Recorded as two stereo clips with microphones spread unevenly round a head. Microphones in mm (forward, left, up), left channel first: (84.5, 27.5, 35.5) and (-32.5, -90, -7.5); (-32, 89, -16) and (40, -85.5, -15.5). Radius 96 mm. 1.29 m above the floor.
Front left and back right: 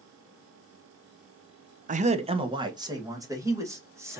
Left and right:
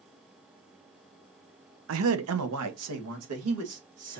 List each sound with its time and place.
1.9 s a man speaking: 95° right, 0.6 m; by 4.2 s 60° right, 2.5 m